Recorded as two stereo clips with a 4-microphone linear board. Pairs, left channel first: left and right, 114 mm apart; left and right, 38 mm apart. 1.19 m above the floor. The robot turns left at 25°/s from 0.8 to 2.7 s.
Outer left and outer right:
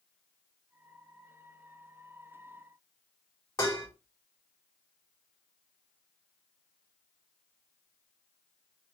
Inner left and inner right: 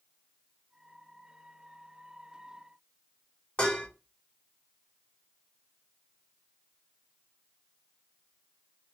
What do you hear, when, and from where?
3.6 s dishes clattering: 30° left (ahead or behind), 1.2 m